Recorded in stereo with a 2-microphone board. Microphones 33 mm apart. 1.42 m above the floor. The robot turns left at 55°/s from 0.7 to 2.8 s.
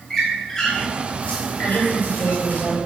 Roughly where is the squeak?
Centre.